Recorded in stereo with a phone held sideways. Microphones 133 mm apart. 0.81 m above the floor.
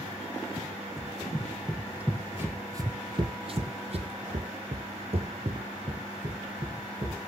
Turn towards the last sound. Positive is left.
turn(degrees=-40)  # may be behind; listen again after turning